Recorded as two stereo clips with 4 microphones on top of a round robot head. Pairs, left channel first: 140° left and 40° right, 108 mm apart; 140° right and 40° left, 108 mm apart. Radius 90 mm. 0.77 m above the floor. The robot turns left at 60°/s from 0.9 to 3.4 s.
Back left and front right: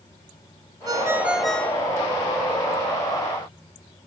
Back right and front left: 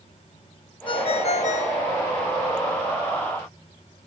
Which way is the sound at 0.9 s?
100° right.